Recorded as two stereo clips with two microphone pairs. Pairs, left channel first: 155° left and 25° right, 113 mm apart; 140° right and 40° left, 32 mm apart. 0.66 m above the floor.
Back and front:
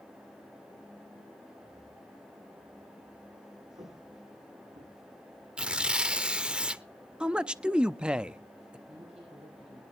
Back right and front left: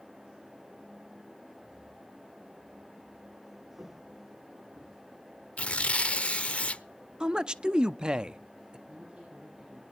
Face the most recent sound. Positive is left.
turn(degrees=-15)